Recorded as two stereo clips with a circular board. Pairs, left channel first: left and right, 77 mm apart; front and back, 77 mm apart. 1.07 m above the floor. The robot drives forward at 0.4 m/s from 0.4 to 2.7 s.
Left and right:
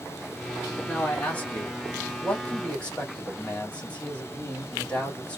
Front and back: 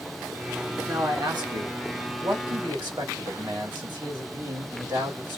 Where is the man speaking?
155° left, 1.8 m; by 5.4 s 165° left, 2.5 m.